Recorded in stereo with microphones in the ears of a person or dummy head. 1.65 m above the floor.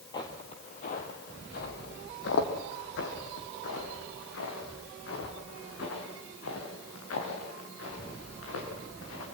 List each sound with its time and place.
0.1 s footsteps: 15° left (ahead or behind), 1.7 m; by 9.2 s 75° left (ahead or behind), 8 m